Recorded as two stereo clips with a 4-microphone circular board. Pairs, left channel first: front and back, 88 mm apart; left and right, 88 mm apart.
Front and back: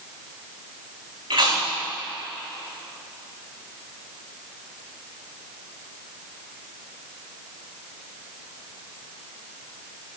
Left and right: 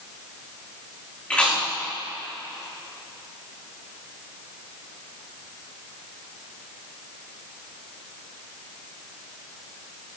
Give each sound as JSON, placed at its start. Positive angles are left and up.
{"t": 1.3, "sound": "chewing", "azimuth_deg": 165, "distance_m": 5.5}